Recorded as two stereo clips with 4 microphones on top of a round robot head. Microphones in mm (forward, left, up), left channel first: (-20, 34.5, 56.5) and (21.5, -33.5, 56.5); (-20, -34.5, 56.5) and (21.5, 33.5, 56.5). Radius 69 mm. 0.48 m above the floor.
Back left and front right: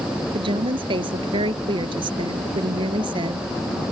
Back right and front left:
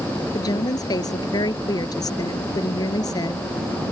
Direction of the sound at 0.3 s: 80° right.